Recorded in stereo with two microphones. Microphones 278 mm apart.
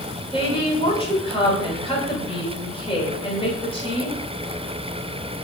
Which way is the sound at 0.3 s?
20° left (ahead or behind).